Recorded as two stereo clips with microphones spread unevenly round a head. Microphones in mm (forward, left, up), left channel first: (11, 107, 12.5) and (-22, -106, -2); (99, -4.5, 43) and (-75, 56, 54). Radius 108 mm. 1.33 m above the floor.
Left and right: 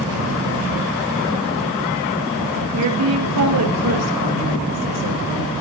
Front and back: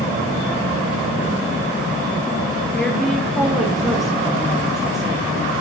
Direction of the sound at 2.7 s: 105° right.